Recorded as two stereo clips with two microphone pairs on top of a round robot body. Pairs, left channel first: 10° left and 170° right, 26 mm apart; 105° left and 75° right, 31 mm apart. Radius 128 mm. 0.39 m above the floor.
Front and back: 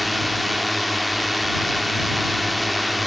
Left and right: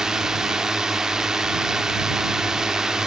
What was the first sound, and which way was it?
A drone, 95° right.